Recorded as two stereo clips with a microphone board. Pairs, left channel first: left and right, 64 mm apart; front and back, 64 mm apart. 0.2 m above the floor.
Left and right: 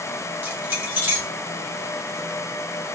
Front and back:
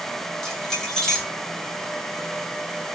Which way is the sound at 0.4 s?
75° right.